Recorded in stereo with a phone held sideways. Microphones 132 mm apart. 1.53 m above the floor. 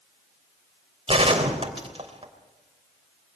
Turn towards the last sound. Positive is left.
turn(degrees=-45)  # may be behind; listen again after turning